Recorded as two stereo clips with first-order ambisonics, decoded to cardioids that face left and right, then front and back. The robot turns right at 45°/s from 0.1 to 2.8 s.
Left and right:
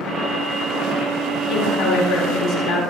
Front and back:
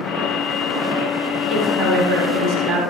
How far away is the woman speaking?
About 9 m.